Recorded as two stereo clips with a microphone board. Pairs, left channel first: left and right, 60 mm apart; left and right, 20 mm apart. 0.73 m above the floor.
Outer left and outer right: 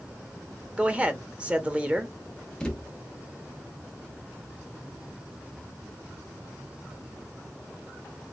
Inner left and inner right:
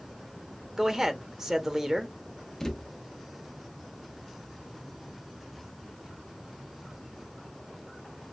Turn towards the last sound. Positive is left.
turn(degrees=15)  # may be behind; listen again after turning